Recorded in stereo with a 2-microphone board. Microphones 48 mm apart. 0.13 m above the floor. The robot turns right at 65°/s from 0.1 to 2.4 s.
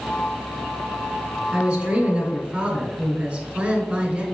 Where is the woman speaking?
15° right (ahead or behind), 1.1 m; by 4.2 s 20° right (ahead or behind), 1.1 m.